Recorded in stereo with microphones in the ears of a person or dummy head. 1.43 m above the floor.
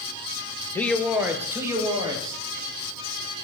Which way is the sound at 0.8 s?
15° left (ahead or behind).